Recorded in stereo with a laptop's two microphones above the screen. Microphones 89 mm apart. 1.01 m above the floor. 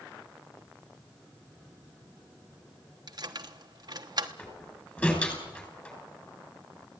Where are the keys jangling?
55° right (ahead or behind), 1.1 m.